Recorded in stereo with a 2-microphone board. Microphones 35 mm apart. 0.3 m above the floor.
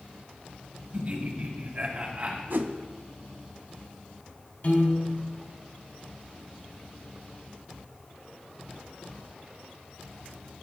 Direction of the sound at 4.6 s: 55° left (ahead or behind).